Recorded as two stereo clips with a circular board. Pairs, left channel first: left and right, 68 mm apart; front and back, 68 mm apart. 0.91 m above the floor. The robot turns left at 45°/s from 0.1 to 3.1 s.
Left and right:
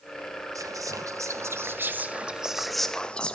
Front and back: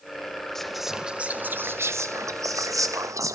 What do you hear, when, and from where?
0.6 s whispering: 80° right, 0.9 m; by 3.4 s 165° left, 0.9 m